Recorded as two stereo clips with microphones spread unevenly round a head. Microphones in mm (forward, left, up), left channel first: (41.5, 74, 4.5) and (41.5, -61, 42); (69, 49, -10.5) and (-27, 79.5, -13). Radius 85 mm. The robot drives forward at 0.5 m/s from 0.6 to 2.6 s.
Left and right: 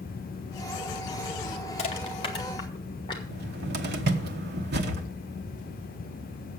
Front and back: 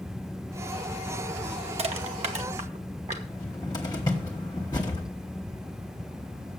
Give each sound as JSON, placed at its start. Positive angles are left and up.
{"t": 1.8, "sound": "crushing", "azimuth_deg": 140, "distance_m": 0.9}
{"t": 3.3, "sound": "a cupboard door", "azimuth_deg": -85, "distance_m": 1.1}